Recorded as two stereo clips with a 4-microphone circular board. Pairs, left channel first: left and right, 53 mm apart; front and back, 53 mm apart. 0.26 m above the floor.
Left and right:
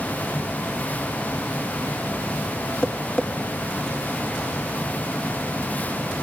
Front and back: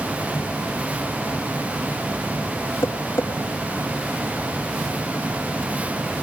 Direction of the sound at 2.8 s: 20° left.